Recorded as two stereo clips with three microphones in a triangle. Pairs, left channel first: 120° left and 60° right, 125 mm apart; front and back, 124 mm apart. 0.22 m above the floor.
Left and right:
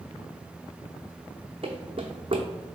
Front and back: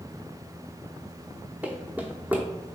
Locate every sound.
1.6 s running footsteps: 105° right, 0.7 m